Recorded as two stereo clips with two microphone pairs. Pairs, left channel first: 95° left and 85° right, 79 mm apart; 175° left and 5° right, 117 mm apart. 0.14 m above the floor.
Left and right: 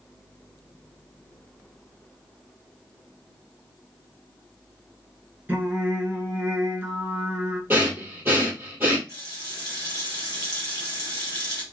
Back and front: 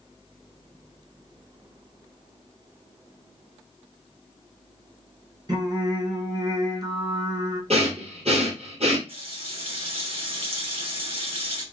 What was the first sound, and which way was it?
Singing, 30° right.